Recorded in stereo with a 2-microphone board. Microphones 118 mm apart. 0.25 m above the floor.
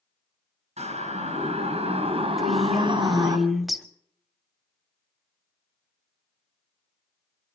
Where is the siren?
70° right (ahead or behind), 5 m; by 3.4 s 35° right (ahead or behind), 2.5 m.